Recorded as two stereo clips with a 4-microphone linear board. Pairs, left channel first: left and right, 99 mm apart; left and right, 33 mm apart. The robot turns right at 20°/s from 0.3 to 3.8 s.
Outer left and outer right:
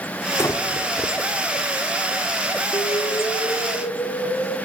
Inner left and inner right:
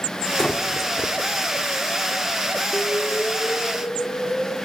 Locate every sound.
0.4 s breathing: 30° left (ahead or behind), 1.0 m; by 1.1 s 15° left (ahead or behind), 1.0 m
2.7 s an explosion: 70° left (ahead or behind), 1.3 m